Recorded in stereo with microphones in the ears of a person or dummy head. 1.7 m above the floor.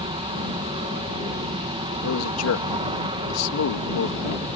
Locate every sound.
0.0 s an aircraft: 25° right (ahead or behind)
2.0 s a man speaking: 90° left